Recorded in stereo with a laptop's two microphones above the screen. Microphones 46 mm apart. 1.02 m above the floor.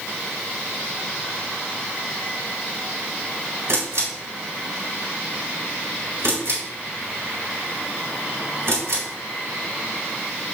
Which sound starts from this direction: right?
A camera shutter, at 3.7 s.